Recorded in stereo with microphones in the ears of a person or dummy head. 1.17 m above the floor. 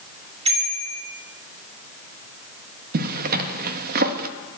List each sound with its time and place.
0.5 s a bicycle bell: 35° right (ahead or behind), 2.5 m
2.9 s a zipper: 50° right (ahead or behind), 1.2 m